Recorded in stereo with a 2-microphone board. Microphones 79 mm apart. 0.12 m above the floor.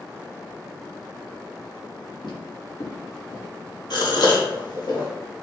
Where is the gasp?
65° left (ahead or behind), 1.2 m.